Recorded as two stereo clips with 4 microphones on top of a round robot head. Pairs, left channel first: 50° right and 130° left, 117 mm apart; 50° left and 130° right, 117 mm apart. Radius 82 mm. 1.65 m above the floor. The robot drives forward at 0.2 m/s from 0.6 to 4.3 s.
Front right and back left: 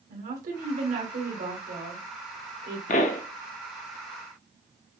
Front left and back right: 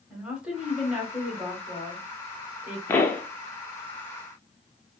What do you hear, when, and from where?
0.1 s a woman speaking: 150° left, 1.5 m; by 2.8 s 155° left, 1.9 m
2.9 s a pop: 20° right, 0.5 m; by 3.2 s 25° right, 0.5 m